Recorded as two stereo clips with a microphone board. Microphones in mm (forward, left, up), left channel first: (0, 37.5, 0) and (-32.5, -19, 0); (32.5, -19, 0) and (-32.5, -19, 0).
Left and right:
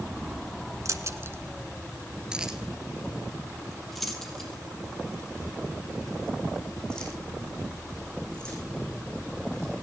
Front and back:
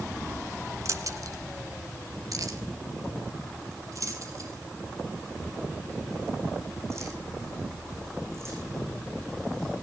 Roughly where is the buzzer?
No buzzer in this recording.